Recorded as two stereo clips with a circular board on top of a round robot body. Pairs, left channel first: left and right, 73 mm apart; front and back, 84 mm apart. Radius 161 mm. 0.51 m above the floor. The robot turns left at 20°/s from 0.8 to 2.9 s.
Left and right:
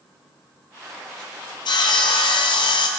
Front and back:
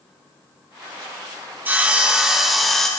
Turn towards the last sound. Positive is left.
turn(degrees=85)